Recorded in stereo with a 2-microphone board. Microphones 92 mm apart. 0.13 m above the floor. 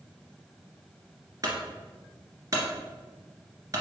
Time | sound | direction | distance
1.4 | a clunk | 40° right (ahead or behind) | 2 m